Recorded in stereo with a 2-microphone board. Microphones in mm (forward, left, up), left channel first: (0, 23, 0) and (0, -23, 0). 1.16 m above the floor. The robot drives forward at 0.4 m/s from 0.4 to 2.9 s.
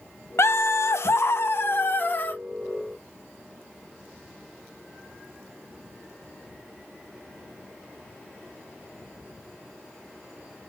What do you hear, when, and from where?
0.4 s laughter: 70° left (ahead or behind), 0.6 m; by 2.4 s 40° left (ahead or behind), 0.9 m